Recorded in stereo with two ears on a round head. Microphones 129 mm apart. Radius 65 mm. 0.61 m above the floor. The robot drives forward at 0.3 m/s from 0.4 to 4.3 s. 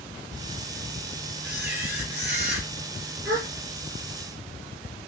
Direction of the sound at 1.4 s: 10° right (ahead or behind).